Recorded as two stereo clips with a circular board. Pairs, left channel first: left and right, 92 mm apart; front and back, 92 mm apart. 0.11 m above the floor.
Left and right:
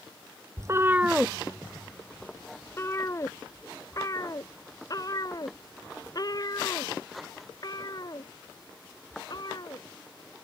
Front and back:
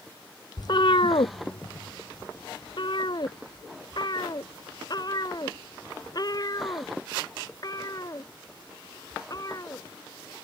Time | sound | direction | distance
0.6 | a cat meowing | 40° right | ?